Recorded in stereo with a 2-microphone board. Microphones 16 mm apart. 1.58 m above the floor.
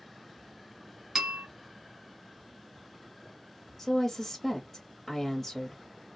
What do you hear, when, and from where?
1.1 s a bell: 35° right (ahead or behind), 2 m
3.8 s a woman speaking: 5° left (ahead or behind), 0.8 m